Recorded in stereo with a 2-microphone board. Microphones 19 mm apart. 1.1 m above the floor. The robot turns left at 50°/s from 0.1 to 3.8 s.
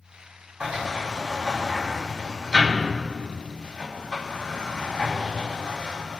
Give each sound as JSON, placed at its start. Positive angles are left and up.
{"t": 0.6, "sound": "a sliding door", "side_deg": -80, "distance_m": 5.0}